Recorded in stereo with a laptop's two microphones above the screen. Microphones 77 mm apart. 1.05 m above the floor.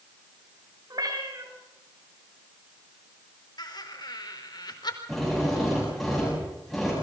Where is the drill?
5° left (ahead or behind), 8.5 m.